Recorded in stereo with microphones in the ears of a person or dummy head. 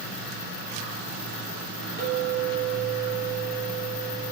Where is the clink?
25° left (ahead or behind), 3 m.